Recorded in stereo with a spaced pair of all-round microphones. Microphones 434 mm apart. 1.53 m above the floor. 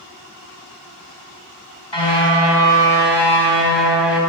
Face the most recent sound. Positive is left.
turn(degrees=70)  # may be behind; listen again after turning